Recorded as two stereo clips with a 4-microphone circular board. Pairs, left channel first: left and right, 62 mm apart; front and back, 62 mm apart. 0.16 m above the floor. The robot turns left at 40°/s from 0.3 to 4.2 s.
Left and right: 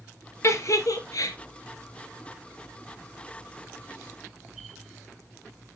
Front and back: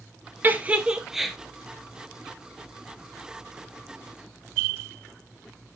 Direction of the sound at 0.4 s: 125° left.